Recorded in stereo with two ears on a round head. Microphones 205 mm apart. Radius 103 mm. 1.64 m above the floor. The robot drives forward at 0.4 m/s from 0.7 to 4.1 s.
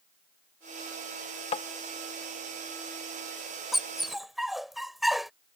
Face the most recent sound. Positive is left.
turn(degrees=0)  # may be behind; listen again after turning